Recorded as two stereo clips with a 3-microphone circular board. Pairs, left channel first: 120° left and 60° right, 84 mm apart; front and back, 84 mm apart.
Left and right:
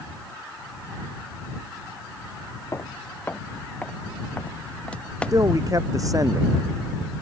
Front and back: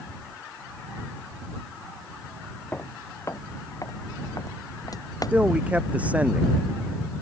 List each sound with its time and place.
2.7 s footsteps: 65° left; by 5.4 s 40° left
5.3 s a man speaking: 105° right